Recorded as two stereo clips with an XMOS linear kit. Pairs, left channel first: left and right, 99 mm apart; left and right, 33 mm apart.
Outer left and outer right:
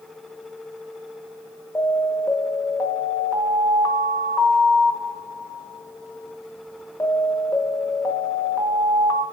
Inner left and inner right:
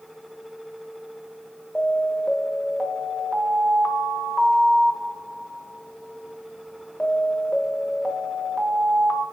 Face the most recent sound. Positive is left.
turn(degrees=30)  # may be behind; listen again after turning